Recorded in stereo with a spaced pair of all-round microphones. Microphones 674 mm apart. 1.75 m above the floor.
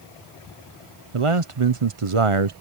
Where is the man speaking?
50° right (ahead or behind).